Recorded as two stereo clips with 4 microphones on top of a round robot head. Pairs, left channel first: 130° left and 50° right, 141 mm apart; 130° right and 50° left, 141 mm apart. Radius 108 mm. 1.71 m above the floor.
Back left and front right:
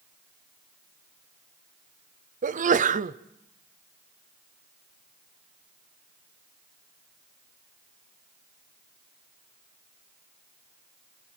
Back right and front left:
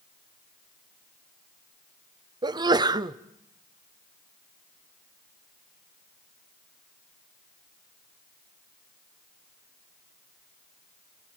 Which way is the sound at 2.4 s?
15° right.